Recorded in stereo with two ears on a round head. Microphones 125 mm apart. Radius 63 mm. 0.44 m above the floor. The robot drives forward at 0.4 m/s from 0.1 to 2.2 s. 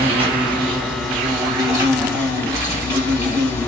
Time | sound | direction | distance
0.0 | an insect | 40° right (ahead or behind) | 1.1 m